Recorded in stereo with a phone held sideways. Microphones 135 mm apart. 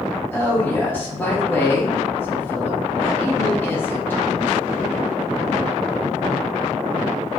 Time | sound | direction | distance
0.3 | a woman speaking | 15° left (ahead or behind) | 1.3 m